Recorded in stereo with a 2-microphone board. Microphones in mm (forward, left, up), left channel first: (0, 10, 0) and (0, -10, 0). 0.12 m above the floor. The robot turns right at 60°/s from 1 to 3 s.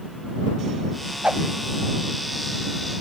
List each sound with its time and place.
1.2 s a whoosh: 85° right; by 1.4 s 75° right (ahead or behind)